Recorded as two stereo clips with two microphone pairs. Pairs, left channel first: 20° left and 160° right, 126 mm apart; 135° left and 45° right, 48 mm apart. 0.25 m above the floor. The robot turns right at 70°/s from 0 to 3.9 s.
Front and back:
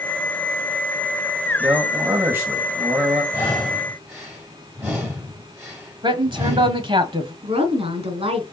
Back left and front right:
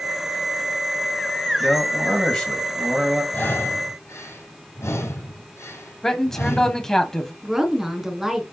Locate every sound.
1.6 s a man speaking: 135° left, 1.6 m; by 3.2 s 110° right, 1.6 m
3.3 s breathing: 90° left, 5 m; by 6.9 s 130° left, 5 m
6.0 s a man speaking: 150° right, 1.5 m
7.4 s a woman speaking: 125° right, 2 m